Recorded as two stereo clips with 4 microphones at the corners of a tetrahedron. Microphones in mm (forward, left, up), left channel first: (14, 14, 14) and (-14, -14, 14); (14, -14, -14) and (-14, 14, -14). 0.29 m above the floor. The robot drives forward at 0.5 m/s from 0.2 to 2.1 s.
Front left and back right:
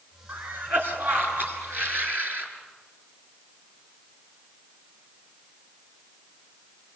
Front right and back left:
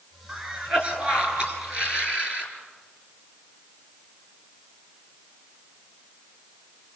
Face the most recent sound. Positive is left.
turn(degrees=-165)